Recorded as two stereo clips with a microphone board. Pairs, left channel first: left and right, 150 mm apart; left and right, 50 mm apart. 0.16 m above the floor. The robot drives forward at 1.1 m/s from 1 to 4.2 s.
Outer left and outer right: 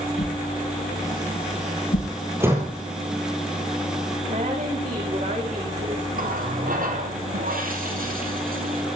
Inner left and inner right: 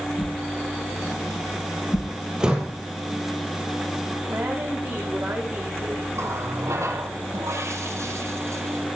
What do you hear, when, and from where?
0.2 s a whoosh: 60° left (ahead or behind), 5 m; by 2.1 s 75° left (ahead or behind), 4.5 m
2.4 s a door slam: 15° right (ahead or behind), 3.5 m
4.3 s a woman speaking: 50° right (ahead or behind), 9 m
6.2 s a running tap: 65° right (ahead or behind), 4 m